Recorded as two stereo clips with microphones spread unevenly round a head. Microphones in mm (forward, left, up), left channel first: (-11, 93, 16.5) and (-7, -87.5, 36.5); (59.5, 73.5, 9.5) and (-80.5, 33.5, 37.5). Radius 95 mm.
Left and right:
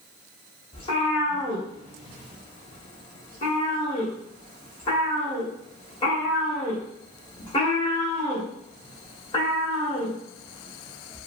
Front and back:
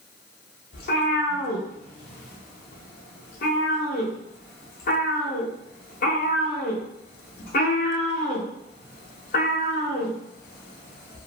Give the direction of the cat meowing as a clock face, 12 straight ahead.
11 o'clock.